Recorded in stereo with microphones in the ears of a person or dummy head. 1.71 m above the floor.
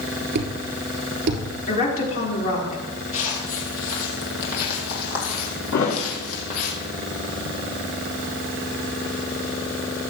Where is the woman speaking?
45° left (ahead or behind), 4 m.